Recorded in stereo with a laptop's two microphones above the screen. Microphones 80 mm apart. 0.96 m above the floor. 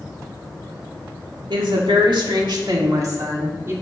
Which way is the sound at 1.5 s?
75° right (ahead or behind).